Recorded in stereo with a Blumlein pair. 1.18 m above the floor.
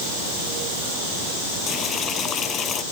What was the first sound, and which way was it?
Boiling, 25° left.